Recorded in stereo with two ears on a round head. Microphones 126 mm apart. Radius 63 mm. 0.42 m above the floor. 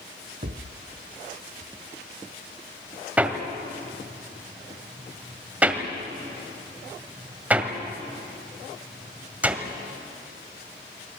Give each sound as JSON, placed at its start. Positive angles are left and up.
{"t": 0.4, "sound": "a thud", "side_deg": -55, "distance_m": 1.3}
{"t": 3.2, "sound": "hammering", "side_deg": -10, "distance_m": 1.7}